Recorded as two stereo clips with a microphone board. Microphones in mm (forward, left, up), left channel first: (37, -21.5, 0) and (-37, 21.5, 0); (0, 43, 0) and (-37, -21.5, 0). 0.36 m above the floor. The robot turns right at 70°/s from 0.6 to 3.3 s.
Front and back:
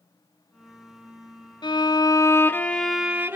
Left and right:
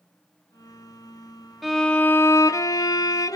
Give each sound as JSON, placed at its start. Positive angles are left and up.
{"t": 1.6, "sound": "a violin", "azimuth_deg": -35, "distance_m": 0.6}